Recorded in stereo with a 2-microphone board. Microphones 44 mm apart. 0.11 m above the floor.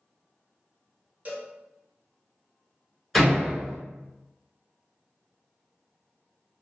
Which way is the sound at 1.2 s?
40° right (ahead or behind).